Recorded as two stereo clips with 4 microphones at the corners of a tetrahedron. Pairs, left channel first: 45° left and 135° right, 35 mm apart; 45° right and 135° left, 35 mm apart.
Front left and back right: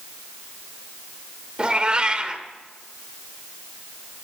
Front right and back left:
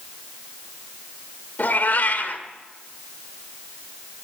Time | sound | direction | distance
1.6 | a cat meowing | 75° right | 1.3 m